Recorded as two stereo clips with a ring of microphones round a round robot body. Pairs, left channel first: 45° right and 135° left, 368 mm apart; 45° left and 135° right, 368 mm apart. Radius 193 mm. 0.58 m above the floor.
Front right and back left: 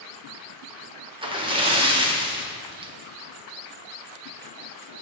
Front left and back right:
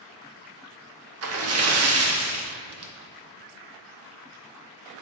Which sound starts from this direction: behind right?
A splash, at 1.2 s.